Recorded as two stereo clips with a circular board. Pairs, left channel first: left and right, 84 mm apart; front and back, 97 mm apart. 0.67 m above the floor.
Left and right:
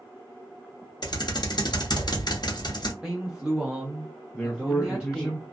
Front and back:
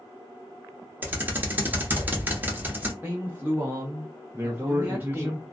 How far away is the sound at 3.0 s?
About 0.9 m.